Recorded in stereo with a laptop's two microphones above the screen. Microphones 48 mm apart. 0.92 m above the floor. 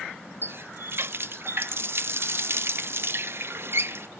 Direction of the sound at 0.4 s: 55° right (ahead or behind).